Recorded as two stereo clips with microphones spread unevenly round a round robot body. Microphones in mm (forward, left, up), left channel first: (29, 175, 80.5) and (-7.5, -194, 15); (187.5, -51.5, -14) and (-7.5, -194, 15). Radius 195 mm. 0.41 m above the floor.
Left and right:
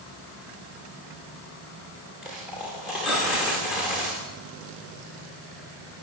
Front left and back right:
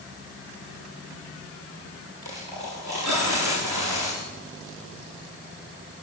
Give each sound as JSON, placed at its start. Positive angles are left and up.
{"t": 2.2, "sound": "a dropped coin", "azimuth_deg": 175, "distance_m": 9.5}